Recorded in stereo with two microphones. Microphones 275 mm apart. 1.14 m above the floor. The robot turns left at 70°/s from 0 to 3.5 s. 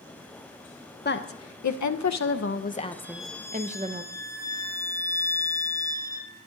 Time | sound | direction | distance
1.1 | a woman speaking | 145° left | 0.6 m
3.0 | a violin | 165° right | 0.6 m